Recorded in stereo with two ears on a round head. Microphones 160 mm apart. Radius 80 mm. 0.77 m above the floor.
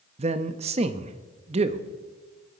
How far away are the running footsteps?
No running footsteps in this recording.